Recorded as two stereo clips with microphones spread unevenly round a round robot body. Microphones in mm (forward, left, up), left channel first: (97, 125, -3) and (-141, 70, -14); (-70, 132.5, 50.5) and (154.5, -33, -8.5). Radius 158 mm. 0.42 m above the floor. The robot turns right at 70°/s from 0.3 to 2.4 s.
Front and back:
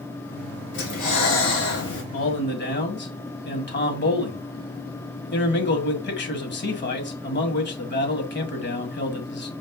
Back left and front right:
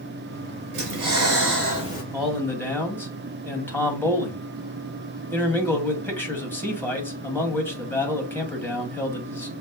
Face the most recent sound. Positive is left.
turn(degrees=55)